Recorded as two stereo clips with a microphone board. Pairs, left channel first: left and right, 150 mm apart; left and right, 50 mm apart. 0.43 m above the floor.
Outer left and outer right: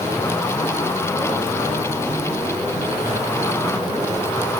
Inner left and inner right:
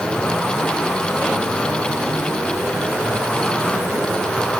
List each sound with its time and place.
Only background noise.